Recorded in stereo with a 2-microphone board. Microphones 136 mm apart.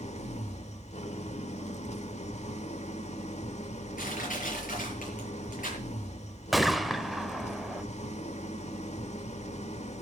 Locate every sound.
0.0 s an engine running: 55° left (ahead or behind), 1.4 m
4.0 s crushing: 85° left, 8 m
6.5 s a gunshot: centre (ahead or behind), 1.0 m